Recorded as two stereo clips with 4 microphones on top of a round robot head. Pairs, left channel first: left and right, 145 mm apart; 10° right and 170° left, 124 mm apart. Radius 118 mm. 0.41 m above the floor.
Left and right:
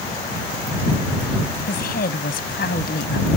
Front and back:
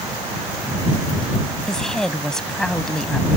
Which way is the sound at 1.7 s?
75° left.